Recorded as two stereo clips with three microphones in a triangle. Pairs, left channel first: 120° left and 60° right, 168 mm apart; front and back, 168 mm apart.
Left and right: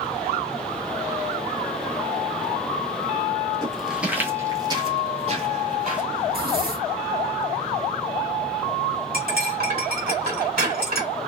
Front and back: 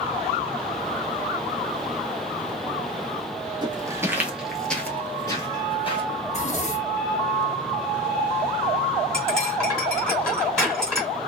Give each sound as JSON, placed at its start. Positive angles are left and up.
{"t": 3.6, "sound": "footsteps", "azimuth_deg": -160, "distance_m": 0.9}
{"t": 6.2, "sound": "a zipper", "azimuth_deg": -45, "distance_m": 0.9}
{"t": 9.1, "sound": "cutlery clinking", "azimuth_deg": -85, "distance_m": 1.4}